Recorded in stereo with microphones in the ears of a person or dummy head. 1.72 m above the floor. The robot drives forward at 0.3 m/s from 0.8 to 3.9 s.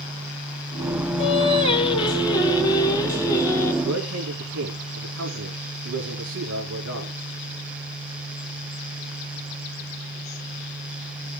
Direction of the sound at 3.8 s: 85° right.